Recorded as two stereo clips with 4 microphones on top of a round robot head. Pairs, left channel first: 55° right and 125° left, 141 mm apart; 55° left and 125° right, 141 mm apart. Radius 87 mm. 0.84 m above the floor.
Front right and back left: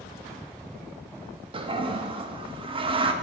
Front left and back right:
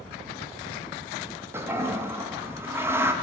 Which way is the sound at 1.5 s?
165° left.